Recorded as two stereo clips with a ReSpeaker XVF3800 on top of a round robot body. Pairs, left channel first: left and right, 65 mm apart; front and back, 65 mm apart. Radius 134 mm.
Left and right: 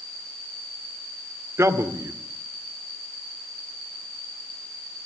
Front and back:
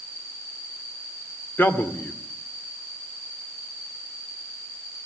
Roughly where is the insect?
Ahead.